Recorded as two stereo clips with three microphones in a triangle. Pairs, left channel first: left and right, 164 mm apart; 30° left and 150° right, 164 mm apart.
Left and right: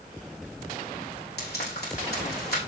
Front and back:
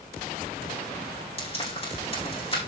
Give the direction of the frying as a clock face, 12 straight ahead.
9 o'clock.